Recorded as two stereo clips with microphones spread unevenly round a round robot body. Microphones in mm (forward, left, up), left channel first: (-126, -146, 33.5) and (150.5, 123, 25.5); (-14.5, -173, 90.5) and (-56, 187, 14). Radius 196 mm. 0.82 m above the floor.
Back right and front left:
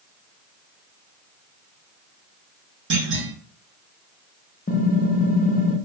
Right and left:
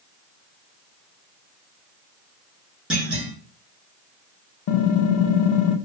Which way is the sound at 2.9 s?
20° left.